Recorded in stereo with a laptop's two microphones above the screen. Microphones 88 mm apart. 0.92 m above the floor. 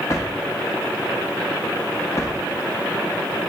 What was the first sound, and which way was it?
A drawer, 35° left (ahead or behind).